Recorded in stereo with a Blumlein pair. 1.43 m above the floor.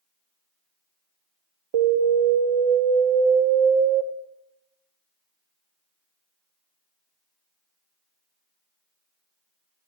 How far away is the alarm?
About 0.8 m.